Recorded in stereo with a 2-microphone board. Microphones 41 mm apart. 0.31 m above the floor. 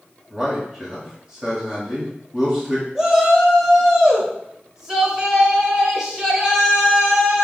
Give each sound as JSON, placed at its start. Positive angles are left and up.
{"t": 0.3, "sound": "a man speaking", "side_deg": -15, "distance_m": 1.4}
{"t": 3.0, "sound": "a shout", "side_deg": -15, "distance_m": 0.9}